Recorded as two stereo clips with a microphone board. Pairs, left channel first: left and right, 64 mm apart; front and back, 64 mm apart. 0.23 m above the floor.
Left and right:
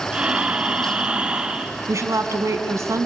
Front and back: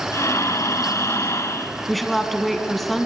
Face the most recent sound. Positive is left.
turn(degrees=-90)